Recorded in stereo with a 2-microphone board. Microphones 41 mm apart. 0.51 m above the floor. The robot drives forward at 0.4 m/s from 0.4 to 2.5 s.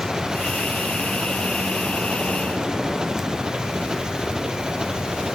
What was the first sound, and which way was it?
An engine running, 15° right (ahead or behind).